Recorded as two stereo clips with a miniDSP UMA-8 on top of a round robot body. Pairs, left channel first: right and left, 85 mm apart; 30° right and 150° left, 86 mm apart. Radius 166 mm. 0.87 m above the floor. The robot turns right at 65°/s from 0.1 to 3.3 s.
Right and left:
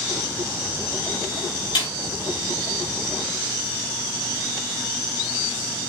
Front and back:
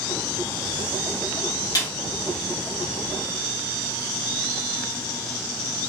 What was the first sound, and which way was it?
A snare drum, 75° right.